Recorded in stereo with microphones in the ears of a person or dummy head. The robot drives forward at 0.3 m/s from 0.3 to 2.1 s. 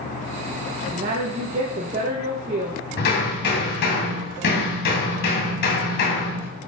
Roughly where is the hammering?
Left.